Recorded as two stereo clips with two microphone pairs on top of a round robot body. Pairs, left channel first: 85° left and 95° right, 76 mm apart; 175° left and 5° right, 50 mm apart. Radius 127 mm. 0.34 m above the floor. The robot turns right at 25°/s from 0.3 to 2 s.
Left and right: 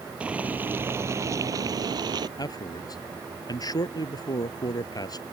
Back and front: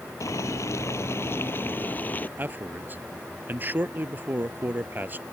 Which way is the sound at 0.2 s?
170° right.